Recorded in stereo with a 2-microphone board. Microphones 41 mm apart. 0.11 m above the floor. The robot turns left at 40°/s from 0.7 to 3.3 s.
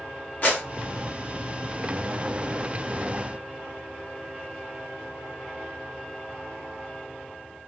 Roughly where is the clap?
Left.